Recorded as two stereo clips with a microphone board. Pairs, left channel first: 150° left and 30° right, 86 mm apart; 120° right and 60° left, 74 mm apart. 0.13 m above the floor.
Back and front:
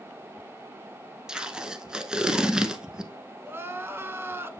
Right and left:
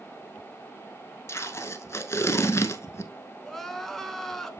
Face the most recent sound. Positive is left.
turn(degrees=-40)